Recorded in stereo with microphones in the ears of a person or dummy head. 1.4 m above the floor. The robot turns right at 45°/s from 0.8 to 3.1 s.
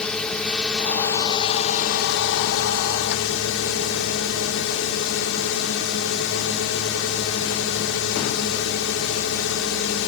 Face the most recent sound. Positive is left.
turn(degrees=110)